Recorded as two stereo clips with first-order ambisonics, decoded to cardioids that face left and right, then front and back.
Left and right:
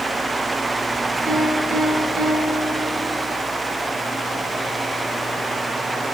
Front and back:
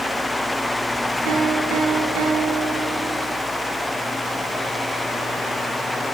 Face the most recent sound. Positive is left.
turn(degrees=-165)